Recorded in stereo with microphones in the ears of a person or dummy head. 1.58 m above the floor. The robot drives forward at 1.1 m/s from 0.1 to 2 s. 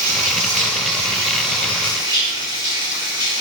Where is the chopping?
No chopping in this recording.